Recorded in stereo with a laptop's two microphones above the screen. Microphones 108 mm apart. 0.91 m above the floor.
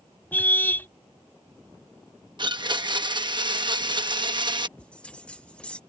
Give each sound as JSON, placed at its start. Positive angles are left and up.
{"t": 0.3, "sound": "a car horn", "side_deg": 15}
{"t": 2.4, "sound": "a blender", "side_deg": -45}
{"t": 4.8, "sound": "a bell", "side_deg": 10}